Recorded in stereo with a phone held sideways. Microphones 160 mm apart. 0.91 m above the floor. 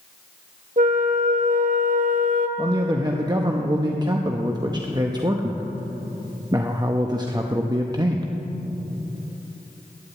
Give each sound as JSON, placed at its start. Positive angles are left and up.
{"t": 0.8, "sound": "a flute", "side_deg": -60, "distance_m": 0.9}
{"t": 2.6, "sound": "a man speaking", "side_deg": -25, "distance_m": 0.8}